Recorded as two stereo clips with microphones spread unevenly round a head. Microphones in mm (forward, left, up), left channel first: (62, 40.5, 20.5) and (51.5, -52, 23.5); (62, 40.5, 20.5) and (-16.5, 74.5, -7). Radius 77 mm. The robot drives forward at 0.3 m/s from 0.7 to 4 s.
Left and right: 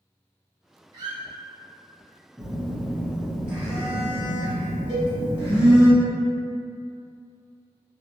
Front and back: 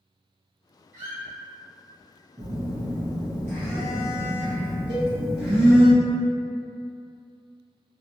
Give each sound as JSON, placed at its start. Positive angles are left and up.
{"t": 0.9, "sound": "a squeak", "azimuth_deg": -120, "distance_m": 0.7}
{"t": 2.4, "sound": "a phone buzzing", "azimuth_deg": -170, "distance_m": 0.6}
{"t": 4.9, "sound": "a cowbell", "azimuth_deg": 165, "distance_m": 1.3}